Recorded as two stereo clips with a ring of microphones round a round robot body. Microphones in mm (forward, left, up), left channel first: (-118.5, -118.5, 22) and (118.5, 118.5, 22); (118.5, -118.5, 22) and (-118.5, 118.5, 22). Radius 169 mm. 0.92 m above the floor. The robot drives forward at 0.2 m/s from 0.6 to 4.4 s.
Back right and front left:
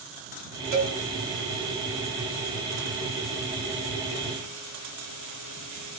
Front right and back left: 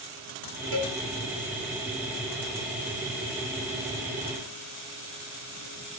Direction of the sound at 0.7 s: 85° left.